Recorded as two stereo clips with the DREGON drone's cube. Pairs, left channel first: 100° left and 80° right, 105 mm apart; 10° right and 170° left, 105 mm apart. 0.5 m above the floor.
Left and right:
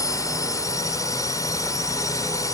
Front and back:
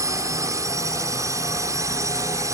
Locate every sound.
0.0 s a drone: 130° left